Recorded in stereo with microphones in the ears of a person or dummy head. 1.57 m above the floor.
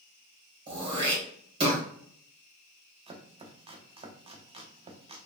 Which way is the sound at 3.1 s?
30° right (ahead or behind).